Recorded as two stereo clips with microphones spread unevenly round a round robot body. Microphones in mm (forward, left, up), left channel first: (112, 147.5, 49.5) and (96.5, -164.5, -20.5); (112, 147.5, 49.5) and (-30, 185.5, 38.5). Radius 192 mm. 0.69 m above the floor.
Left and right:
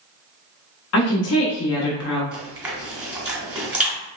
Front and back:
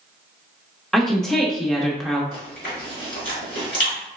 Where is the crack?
I don't hear a crack.